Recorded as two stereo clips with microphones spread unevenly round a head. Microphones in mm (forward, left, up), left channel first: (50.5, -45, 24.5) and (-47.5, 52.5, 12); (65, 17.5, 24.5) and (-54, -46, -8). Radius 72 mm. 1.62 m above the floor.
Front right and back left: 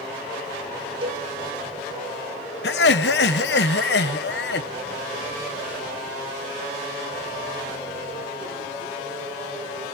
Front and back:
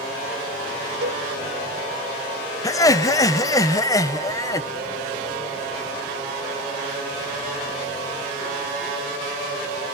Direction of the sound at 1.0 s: 170° right.